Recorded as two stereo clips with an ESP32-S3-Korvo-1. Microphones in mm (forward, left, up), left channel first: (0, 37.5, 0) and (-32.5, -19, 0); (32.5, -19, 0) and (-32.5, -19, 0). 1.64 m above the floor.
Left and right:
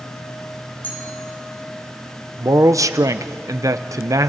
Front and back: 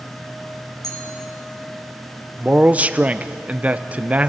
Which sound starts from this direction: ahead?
A clink, at 0.8 s.